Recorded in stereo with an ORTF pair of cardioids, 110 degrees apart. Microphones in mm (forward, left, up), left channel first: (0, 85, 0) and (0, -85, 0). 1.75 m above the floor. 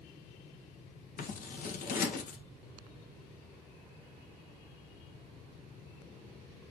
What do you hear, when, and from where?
1.2 s scissors: 55° left, 1.8 m